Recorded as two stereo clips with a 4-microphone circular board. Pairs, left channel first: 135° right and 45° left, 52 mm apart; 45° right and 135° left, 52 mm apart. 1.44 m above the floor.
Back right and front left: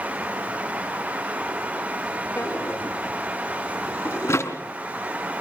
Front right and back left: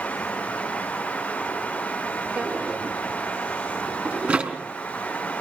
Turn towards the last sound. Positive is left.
turn(degrees=-160)